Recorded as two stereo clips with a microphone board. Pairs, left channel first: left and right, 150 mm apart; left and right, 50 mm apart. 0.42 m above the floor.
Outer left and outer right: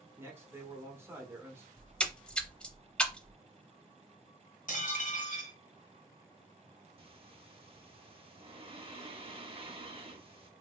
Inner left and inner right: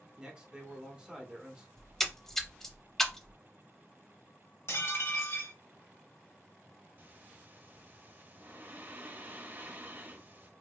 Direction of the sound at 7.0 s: 40° right (ahead or behind).